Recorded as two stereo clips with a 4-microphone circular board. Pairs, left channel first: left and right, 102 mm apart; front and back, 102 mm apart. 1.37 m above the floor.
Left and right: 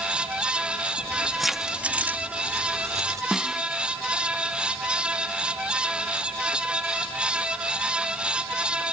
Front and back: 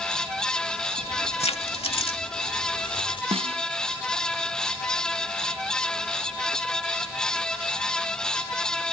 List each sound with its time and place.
1.0 s keys jangling: 15° left; by 3.2 s 35° right
3.3 s a snare drum: 175° right